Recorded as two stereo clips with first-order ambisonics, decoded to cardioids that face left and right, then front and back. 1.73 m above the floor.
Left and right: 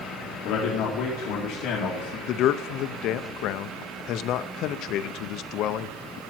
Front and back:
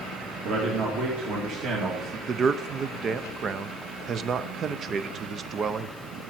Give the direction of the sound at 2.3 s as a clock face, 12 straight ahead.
8 o'clock.